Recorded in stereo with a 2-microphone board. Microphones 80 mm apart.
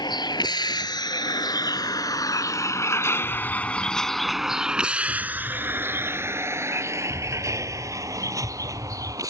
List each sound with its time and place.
0.0 s a vehicle: 75° left (ahead or behind); by 9.3 s 50° right (ahead or behind)
3.2 s an explosion: 75° left (ahead or behind)